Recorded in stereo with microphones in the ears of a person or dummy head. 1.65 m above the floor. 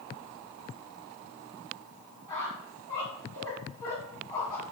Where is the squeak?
15° left (ahead or behind), 1.4 m.